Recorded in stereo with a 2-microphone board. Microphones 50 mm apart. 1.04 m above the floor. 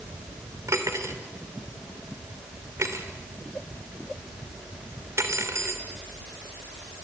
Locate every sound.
0.7 s cutlery clinking: 70° right (ahead or behind), 2.5 m